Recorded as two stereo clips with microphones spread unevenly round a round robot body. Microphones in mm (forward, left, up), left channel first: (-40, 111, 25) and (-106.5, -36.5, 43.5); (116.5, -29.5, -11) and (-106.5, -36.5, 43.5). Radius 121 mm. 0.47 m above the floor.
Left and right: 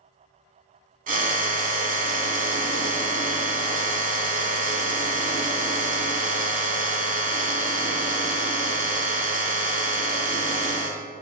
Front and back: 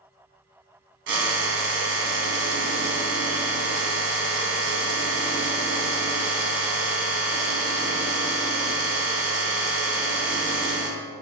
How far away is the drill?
About 0.7 m.